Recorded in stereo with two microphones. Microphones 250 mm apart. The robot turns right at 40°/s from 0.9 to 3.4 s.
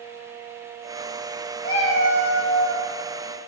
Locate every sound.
1.6 s a cat meowing: 40° left, 1.2 m; by 2.9 s 90° left, 1.2 m